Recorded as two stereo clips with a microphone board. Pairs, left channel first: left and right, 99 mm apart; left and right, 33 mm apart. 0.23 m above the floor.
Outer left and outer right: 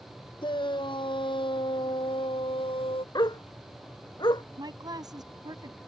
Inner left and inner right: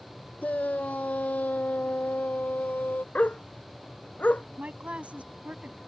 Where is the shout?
55° left (ahead or behind); by 3.0 s 65° left (ahead or behind).